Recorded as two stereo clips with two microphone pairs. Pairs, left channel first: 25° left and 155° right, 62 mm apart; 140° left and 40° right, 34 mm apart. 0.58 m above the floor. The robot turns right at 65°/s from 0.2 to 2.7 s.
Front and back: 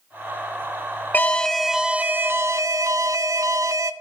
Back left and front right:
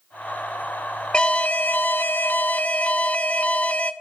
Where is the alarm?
80° left, 0.7 m; by 3.9 s 175° right, 0.7 m.